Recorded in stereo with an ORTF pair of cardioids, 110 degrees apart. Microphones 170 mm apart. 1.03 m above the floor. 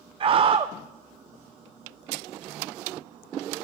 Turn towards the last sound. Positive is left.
turn(degrees=-35)